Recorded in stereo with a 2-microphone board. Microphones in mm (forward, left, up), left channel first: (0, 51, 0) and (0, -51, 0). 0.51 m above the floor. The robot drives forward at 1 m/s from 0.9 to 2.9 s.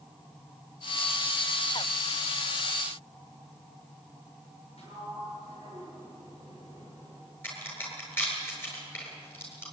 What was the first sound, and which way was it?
A sliding door, 80° left.